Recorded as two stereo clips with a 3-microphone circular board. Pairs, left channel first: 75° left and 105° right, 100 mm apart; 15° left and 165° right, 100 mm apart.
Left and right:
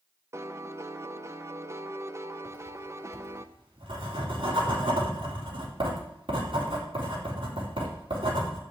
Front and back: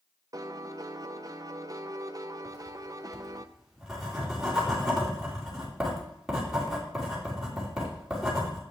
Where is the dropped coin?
No dropped coin in this recording.